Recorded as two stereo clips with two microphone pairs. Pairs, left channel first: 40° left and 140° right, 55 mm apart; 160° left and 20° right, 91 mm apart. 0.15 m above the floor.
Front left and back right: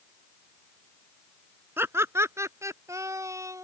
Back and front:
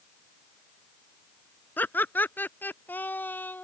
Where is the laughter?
135° right; by 3.6 s 130° right.